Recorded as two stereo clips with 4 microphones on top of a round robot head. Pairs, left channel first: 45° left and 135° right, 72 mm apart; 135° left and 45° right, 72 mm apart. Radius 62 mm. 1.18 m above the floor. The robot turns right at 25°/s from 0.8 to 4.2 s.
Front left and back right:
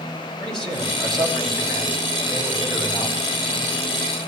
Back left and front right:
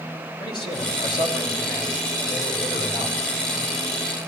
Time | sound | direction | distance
0.4 | a man speaking | 125° left | 5 m